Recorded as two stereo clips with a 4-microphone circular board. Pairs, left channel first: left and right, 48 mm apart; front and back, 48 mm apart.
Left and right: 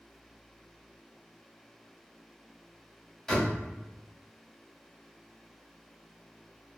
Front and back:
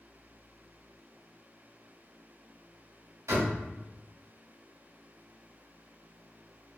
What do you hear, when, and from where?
3.3 s a door slam: 170° left, 2 m